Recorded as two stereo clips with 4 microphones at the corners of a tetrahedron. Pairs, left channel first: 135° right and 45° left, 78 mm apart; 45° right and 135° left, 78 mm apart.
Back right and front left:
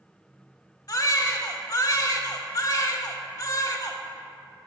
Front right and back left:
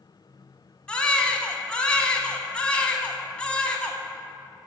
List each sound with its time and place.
0.9 s a baby crying: 115° right, 0.6 m